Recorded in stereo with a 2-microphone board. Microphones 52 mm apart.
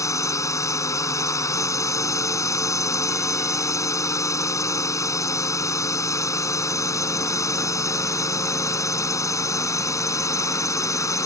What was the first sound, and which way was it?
A drone, 75° left (ahead or behind).